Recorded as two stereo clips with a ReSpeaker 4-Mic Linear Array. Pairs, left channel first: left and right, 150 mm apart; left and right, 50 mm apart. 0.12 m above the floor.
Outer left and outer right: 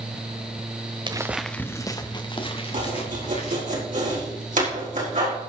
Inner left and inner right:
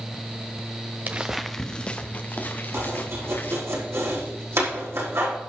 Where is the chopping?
70° right (ahead or behind), 4.5 m.